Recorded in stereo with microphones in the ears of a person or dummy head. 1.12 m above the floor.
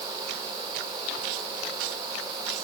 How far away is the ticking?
No ticking in this recording.